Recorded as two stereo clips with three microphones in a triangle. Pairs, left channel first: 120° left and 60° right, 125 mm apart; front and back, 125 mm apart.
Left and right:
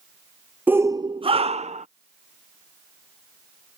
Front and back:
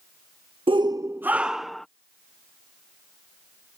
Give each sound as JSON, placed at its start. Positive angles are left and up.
{"t": 0.7, "sound": "a shout", "azimuth_deg": -135}